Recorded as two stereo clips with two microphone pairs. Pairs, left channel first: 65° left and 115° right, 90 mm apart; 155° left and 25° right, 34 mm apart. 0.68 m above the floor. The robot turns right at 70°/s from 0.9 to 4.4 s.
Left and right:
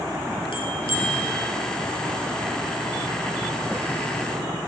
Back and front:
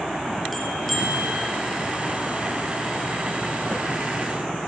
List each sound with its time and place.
0.5 s a bell: 70° left, 2.5 m; by 1.4 s 105° left, 2.5 m